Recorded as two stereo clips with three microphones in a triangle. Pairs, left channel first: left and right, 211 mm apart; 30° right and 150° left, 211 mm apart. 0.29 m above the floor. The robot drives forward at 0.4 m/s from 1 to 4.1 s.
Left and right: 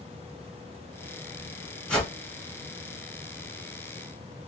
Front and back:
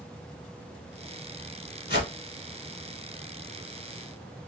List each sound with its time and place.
1.9 s a whoosh: 5° left, 1.2 m